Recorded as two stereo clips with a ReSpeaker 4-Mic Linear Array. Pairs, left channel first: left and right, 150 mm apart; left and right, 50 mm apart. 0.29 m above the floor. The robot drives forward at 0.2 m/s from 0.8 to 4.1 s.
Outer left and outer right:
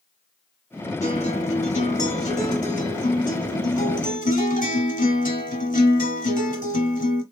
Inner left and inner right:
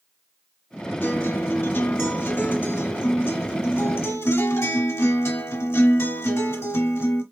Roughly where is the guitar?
Left.